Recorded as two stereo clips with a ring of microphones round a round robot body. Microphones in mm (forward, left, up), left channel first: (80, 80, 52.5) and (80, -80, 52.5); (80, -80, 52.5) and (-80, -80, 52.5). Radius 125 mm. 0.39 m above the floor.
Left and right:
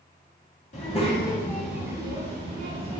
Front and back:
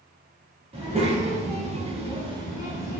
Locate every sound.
0.7 s a child speaking: 130° left, 1.0 m; by 3.0 s 110° right, 1.1 m